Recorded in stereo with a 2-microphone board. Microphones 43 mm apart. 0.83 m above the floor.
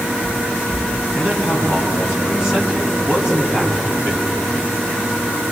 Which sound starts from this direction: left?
A man speaking, at 1.1 s.